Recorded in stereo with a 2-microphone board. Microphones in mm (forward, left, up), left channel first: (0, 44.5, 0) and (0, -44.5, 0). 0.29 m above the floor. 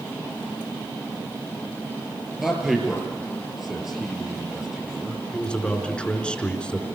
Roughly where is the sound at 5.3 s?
Centre.